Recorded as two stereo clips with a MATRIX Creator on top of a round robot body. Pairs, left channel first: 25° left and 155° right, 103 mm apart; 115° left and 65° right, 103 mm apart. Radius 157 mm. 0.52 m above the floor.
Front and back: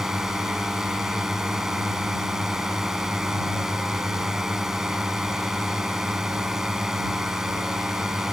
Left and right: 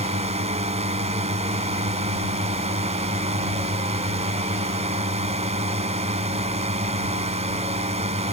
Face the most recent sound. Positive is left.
turn(degrees=-75)